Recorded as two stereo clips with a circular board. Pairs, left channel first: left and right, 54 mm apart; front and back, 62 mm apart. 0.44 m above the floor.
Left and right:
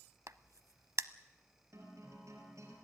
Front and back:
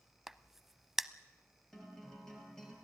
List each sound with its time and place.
0.3 s a crack: 95° right, 0.6 m
1.7 s a guitar: 80° right, 4.5 m